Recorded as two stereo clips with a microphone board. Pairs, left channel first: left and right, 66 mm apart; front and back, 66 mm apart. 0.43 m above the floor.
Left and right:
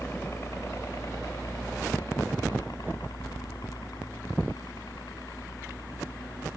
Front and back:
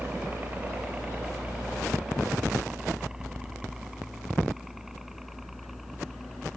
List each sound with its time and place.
0.0 s a helicopter: 125° left; by 6.6 s 90° left